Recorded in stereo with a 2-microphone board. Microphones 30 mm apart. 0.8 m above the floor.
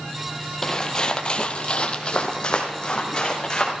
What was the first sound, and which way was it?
Footsteps, 25° left (ahead or behind).